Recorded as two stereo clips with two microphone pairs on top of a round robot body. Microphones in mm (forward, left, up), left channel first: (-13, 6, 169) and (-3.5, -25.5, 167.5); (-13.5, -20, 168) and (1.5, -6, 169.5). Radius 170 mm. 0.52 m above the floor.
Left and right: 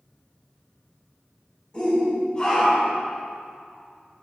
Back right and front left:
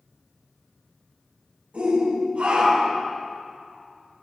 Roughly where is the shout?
Ahead left.